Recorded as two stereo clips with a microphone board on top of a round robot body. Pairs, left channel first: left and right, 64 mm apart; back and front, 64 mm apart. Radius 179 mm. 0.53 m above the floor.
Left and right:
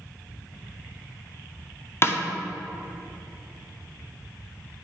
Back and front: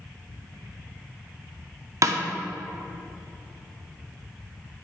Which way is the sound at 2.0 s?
35° left.